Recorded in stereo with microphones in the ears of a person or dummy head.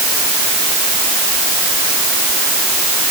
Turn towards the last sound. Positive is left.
No sound to turn to.